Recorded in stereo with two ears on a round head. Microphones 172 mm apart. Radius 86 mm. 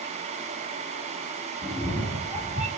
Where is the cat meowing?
10° left (ahead or behind), 1.2 m; by 2.7 s 5° right (ahead or behind), 1.4 m.